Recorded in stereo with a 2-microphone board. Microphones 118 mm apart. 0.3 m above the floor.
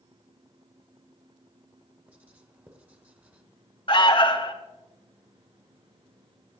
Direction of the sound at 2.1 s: 15° right (ahead or behind).